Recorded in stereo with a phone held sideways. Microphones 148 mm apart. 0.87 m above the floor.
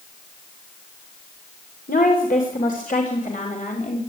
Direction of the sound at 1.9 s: 75° left (ahead or behind).